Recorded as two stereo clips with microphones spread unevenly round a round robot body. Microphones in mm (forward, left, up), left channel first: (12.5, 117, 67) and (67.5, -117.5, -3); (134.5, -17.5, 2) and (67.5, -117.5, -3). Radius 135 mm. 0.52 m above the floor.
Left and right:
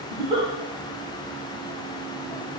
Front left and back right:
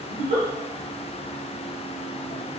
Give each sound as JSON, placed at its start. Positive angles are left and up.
{"t": 0.1, "sound": "a giggle", "azimuth_deg": -150, "distance_m": 0.7}